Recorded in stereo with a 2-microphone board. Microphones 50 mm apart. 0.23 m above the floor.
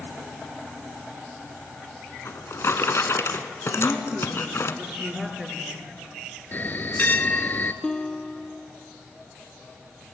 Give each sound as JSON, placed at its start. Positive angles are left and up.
{"t": 2.2, "sound": "a drawer", "side_deg": 60, "distance_m": 1.2}
{"t": 3.7, "sound": "a woman speaking", "side_deg": -10, "distance_m": 3.5}
{"t": 6.5, "sound": "a bell", "side_deg": 40, "distance_m": 0.9}
{"t": 7.8, "sound": "a guitar", "side_deg": 15, "distance_m": 1.1}